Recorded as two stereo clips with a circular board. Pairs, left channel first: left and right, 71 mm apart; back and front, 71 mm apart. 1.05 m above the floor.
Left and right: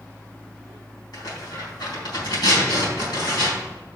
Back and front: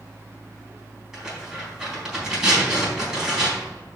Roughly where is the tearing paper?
Left.